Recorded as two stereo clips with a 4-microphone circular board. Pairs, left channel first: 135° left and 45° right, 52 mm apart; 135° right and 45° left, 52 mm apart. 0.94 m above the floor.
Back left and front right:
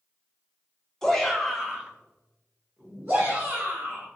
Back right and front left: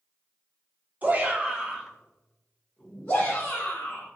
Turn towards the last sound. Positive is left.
turn(degrees=-85)